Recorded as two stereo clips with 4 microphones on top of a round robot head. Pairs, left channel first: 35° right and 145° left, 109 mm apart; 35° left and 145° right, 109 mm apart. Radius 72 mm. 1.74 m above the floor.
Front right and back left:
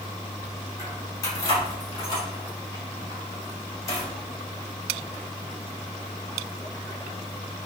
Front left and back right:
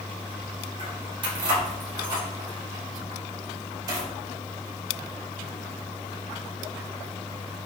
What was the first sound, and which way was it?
Keys jangling, 95° right.